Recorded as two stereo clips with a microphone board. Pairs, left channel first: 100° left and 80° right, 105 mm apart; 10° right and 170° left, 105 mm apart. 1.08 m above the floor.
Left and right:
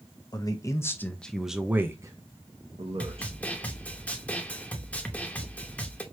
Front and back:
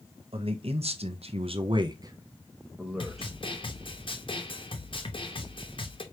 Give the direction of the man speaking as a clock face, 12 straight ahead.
7 o'clock.